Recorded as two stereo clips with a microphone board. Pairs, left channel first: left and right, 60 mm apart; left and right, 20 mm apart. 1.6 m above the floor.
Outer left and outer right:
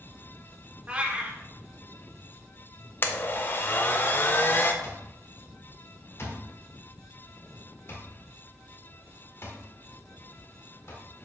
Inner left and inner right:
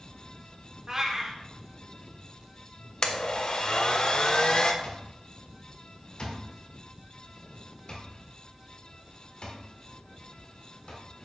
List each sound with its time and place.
0.9 s a cat meowing: 25° right (ahead or behind), 1.4 m
3.0 s a blender: 35° left (ahead or behind), 0.9 m
4.8 s an alarm clock: 45° left (ahead or behind), 1.7 m